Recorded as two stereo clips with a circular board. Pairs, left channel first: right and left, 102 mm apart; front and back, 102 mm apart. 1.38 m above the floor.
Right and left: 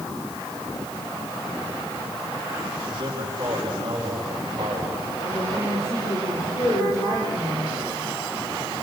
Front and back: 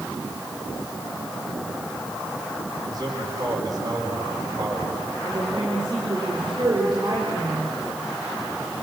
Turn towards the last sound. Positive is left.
turn(degrees=-140)